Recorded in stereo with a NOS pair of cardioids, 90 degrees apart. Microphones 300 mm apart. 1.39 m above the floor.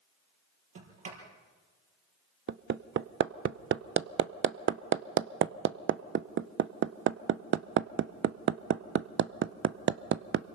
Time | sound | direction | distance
0.8 | a sliding door | 50° right | 5.5 m
2.5 | hammering | 40° right | 0.7 m